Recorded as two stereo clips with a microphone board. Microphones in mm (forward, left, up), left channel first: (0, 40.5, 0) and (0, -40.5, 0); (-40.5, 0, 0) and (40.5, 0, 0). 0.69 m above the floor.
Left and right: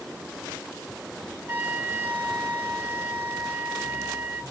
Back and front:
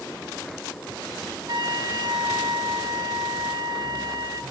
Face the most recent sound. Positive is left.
turn(degrees=-30)